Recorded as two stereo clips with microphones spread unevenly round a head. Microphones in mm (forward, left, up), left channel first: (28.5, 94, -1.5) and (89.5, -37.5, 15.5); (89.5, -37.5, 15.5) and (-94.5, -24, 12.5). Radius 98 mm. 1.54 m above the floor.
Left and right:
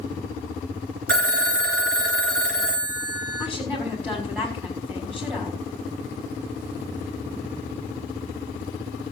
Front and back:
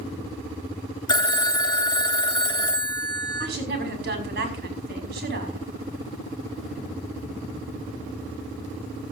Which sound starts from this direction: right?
A phone ringing, at 1.1 s.